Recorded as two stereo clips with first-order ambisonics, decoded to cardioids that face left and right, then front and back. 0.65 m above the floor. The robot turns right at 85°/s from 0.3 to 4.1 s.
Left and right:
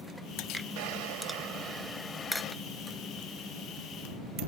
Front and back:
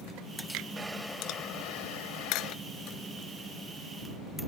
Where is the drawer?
105° right; by 2.5 s 45° left.